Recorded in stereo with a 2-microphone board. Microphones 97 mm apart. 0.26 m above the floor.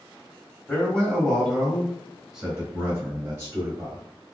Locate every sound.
0.7 s a man speaking: 15° left (ahead or behind), 1.7 m; by 4.0 s 35° right (ahead or behind), 1.8 m